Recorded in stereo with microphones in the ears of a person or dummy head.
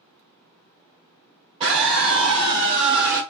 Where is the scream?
25° right (ahead or behind), 2.5 m; by 3.2 s 20° right (ahead or behind), 3.5 m.